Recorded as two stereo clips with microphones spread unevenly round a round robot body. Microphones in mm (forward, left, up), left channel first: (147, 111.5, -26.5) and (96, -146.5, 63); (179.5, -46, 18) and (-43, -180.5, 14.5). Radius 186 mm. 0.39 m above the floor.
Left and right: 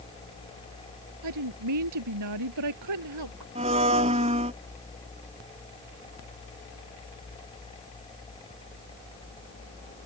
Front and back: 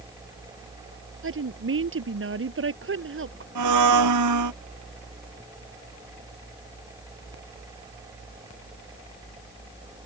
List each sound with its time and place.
1.2 s a woman speaking: 110° right
3.5 s a blender: 175° right